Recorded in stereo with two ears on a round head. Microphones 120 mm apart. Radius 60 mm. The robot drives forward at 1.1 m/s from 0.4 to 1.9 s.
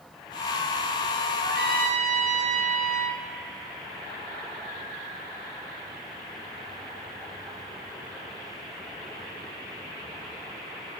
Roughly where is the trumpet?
Right.